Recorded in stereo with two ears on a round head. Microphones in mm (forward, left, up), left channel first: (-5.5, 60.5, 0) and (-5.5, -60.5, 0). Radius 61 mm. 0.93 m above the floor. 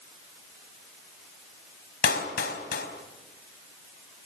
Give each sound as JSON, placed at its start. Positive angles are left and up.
{"t": 2.0, "sound": "a clap", "side_deg": 75, "distance_m": 4.0}